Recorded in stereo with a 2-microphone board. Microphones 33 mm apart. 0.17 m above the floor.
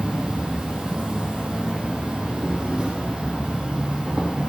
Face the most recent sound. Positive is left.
turn(degrees=-20)  # may be behind; listen again after turning